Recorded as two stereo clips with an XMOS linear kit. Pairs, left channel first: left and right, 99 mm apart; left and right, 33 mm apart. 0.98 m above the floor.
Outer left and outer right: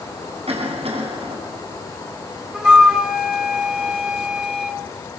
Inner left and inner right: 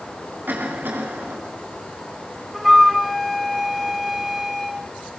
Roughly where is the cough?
Right.